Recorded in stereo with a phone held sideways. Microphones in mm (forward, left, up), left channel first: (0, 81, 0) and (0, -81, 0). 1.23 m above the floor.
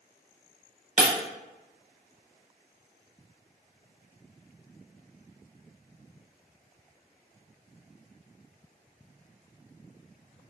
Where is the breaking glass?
50° right (ahead or behind), 0.9 m.